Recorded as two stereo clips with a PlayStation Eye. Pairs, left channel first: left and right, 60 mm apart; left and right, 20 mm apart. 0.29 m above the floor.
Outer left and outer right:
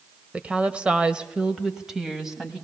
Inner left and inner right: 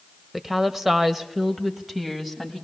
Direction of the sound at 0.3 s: 25° right (ahead or behind).